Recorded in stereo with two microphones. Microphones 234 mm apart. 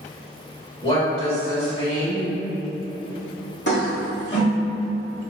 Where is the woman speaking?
25° left (ahead or behind), 1.5 m.